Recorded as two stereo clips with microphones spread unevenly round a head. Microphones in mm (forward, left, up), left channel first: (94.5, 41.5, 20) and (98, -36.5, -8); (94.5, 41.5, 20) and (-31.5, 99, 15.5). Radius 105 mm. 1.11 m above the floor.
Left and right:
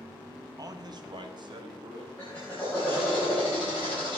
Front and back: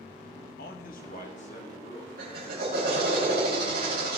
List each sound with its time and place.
0.6 s a man speaking: 55° right, 1.5 m; by 2.1 s 90° right, 3.5 m
2.2 s a drill: 175° left, 5 m